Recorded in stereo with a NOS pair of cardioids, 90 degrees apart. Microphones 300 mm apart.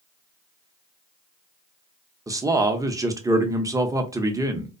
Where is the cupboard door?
I don't hear a cupboard door.